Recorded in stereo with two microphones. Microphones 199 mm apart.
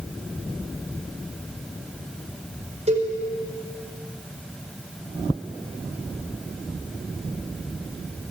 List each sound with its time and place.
2.9 s a cowbell: 35° right (ahead or behind), 4.5 m